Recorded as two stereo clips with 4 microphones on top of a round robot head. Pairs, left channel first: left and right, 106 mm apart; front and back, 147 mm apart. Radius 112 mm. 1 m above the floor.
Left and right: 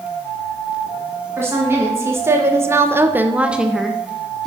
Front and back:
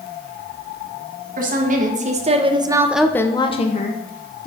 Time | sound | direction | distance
1.4 | a woman speaking | 160° right | 1.4 m